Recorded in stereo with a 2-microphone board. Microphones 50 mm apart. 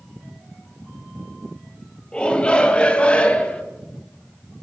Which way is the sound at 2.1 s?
20° left (ahead or behind).